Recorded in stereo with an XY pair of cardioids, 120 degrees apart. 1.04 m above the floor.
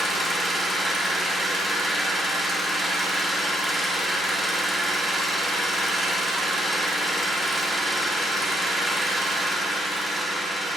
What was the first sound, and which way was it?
An engine running, 10° right.